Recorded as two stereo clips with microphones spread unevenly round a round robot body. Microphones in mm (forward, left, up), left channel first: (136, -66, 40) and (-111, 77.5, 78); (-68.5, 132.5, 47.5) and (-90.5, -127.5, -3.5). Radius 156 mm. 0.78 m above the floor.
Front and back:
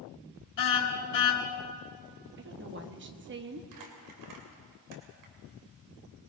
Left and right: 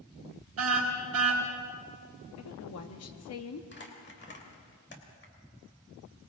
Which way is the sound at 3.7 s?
135° left.